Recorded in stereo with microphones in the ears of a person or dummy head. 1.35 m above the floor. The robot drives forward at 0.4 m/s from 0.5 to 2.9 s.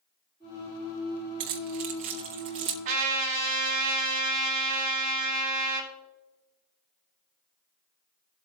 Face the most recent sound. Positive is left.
turn(degrees=-45)  # may be behind; listen again after turning